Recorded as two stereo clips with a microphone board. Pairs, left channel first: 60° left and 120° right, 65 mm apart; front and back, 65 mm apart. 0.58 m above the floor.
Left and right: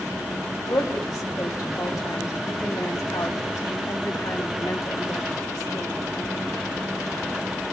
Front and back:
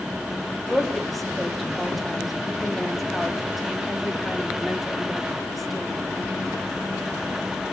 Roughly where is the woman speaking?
Left.